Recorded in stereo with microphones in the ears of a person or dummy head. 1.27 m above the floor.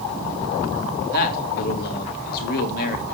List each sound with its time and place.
1.1 s a man speaking: 55° left (ahead or behind), 3 m